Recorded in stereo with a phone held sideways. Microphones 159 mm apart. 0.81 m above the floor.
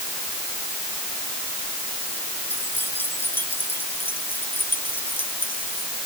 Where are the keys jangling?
15° left (ahead or behind); by 5.9 s 10° left (ahead or behind).